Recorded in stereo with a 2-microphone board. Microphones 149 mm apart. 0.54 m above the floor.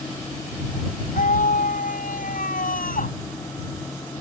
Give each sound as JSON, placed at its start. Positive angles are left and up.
{"t": 1.1, "sound": "a scream", "side_deg": 70}